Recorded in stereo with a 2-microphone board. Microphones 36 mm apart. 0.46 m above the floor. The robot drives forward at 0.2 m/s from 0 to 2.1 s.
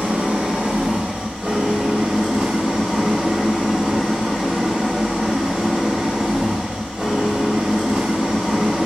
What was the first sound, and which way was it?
An engine running, 50° right (ahead or behind).